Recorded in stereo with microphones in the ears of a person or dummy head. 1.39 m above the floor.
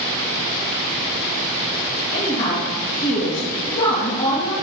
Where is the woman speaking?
35° left (ahead or behind), 2 m.